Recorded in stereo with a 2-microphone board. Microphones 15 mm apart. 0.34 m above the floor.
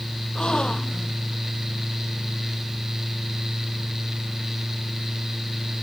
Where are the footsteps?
I don't hear footsteps.